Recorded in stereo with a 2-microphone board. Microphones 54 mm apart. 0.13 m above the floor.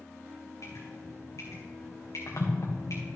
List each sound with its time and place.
0.6 s dripping: 85° left, 2.5 m